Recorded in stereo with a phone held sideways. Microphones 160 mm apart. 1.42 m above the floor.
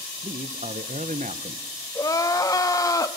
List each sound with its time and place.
0.2 s a man speaking: 45° right (ahead or behind), 0.9 m
1.9 s crying: 20° left (ahead or behind), 1.1 m